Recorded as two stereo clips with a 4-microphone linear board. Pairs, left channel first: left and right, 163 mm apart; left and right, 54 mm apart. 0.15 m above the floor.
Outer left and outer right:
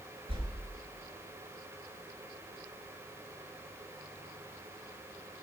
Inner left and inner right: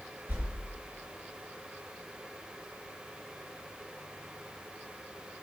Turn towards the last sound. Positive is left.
turn(degrees=-35)  # may be behind; listen again after turning